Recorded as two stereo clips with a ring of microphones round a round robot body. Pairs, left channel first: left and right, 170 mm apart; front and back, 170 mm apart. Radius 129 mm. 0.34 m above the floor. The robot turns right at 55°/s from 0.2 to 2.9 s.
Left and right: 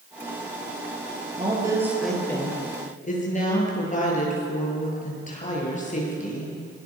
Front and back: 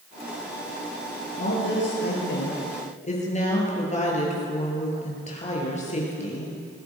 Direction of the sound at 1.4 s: 35° right.